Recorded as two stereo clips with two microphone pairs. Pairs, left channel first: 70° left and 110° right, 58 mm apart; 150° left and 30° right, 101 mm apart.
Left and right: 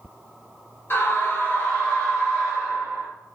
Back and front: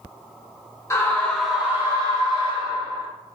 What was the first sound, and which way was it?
A scream, 95° left.